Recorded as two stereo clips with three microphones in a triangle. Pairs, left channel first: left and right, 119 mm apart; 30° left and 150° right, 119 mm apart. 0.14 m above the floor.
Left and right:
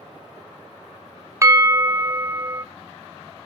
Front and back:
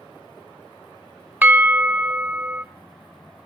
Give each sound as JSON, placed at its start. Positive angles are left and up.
{"t": 1.4, "sound": "a bell", "azimuth_deg": -95, "distance_m": 0.8}